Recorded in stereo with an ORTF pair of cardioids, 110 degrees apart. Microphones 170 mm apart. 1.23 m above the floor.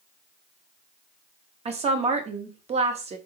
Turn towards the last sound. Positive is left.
turn(degrees=-35)